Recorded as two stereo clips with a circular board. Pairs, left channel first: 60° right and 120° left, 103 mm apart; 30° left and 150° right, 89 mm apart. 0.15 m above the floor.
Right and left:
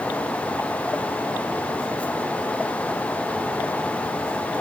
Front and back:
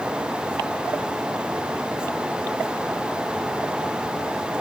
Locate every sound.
Only background noise.